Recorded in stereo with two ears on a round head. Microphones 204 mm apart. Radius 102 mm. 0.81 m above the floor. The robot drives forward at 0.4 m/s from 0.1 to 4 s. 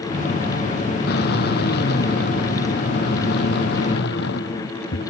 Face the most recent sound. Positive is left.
turn(degrees=55)  # may be behind; listen again after turning